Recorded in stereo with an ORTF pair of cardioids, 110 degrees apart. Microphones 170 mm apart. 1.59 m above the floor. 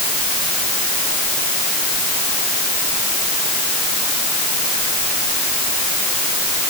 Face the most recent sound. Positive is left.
No sound to turn to.